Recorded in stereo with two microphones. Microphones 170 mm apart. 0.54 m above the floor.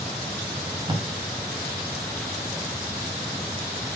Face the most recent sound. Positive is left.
turn(degrees=-25)  # may be behind; listen again after turning